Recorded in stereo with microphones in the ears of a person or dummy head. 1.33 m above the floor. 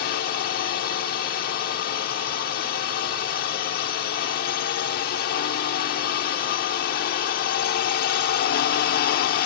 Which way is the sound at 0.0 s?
60° left (ahead or behind).